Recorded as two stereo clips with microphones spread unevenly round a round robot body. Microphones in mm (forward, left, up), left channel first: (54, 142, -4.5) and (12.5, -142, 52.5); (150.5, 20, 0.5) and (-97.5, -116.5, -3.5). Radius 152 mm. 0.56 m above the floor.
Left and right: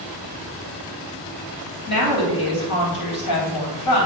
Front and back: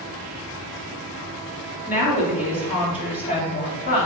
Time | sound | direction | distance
1.9 | a woman speaking | 95° left | 3 m